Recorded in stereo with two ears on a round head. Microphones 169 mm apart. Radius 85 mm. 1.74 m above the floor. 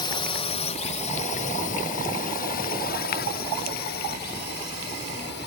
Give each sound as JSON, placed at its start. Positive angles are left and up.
{"t": 0.0, "sound": "a drone", "side_deg": 25}